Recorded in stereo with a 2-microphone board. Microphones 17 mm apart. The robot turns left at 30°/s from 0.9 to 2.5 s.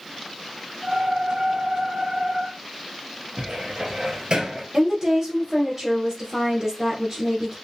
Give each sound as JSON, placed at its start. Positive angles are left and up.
{"t": 3.4, "sound": "a cupboard door", "side_deg": -55, "distance_m": 1.3}
{"t": 4.7, "sound": "a woman speaking", "side_deg": -30, "distance_m": 2.0}